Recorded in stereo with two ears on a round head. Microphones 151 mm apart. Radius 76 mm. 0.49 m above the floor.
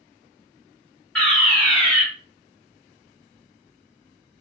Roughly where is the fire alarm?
Centre.